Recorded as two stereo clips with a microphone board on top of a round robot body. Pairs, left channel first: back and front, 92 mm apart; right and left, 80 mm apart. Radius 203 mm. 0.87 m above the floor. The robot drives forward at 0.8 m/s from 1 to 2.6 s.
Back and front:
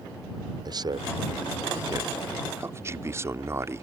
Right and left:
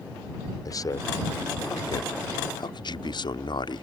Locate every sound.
0.7 s a man speaking: 45° right; by 3.8 s 60° right